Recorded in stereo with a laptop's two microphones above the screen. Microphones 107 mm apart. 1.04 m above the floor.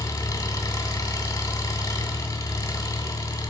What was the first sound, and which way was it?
An engine running, 35° left (ahead or behind).